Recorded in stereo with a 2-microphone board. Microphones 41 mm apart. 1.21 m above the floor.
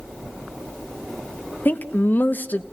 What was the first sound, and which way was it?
A woman speaking, 45° left (ahead or behind).